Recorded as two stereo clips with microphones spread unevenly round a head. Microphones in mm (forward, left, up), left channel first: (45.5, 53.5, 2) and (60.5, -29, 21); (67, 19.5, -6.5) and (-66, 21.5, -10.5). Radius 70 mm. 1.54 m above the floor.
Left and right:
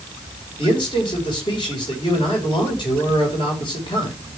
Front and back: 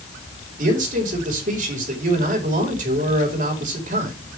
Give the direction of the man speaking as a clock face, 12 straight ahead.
7 o'clock.